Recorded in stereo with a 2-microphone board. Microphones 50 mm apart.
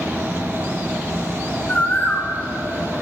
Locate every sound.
1.7 s a bird: 35° left (ahead or behind), 3 m